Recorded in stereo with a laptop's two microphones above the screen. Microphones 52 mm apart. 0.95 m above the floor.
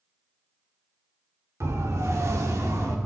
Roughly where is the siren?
Right.